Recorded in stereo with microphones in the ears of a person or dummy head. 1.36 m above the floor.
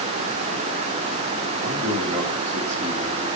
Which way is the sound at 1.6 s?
25° right (ahead or behind).